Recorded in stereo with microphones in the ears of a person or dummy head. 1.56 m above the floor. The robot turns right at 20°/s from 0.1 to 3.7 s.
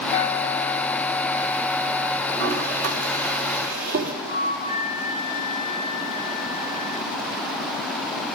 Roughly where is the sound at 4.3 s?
Right.